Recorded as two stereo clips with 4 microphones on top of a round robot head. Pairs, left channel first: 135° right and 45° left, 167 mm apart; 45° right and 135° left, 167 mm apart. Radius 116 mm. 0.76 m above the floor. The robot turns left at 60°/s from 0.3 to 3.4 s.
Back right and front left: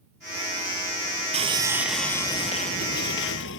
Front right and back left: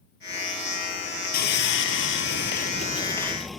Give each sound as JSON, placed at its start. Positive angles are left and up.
{"t": 1.3, "sound": "sawing", "azimuth_deg": -10}